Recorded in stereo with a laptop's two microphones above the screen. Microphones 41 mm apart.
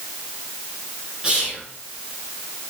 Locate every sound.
1.2 s whispering: 20° right (ahead or behind), 0.6 m